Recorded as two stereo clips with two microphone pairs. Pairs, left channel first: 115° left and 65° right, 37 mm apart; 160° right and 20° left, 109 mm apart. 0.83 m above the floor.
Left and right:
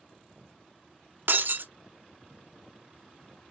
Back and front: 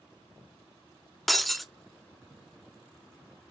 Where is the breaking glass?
70° right, 0.6 m.